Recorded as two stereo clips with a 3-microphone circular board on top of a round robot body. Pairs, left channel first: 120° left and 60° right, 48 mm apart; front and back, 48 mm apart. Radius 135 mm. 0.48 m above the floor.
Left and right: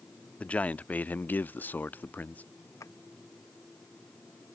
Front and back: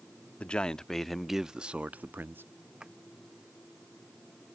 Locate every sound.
0.4 s a man speaking: 60° left; by 2.4 s 165° left
2.8 s a drawer: 105° left